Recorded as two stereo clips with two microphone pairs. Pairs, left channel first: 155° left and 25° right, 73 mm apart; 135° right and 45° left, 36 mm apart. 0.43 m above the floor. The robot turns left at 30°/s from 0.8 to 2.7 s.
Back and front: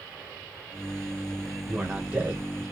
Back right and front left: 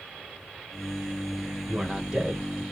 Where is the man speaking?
40° left, 1.1 m; by 2.6 s 10° left, 1.1 m.